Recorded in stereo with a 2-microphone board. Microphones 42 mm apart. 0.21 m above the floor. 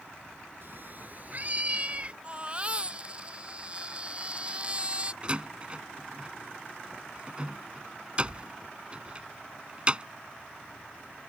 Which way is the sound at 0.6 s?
55° right (ahead or behind).